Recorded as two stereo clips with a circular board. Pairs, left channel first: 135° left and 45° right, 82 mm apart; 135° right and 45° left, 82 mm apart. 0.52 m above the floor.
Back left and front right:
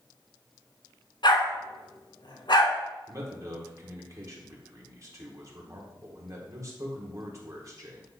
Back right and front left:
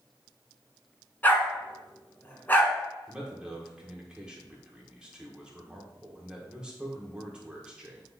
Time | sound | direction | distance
1.2 | a dog barking | 155° left | 1.3 m
3.1 | a man speaking | 30° right | 1.6 m